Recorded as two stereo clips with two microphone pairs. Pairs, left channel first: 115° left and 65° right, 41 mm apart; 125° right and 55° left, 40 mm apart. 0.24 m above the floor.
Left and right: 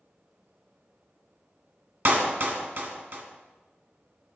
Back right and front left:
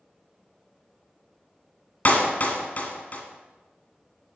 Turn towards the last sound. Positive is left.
turn(degrees=-90)